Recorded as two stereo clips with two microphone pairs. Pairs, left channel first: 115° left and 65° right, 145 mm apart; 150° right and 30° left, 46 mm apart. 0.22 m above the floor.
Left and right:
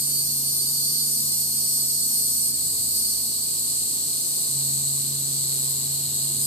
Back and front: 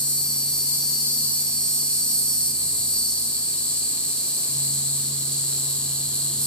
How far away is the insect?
About 0.8 m.